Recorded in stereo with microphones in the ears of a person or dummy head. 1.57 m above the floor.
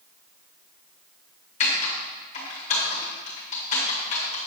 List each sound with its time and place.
1.6 s typing on a keyboard: 40° left (ahead or behind), 2 m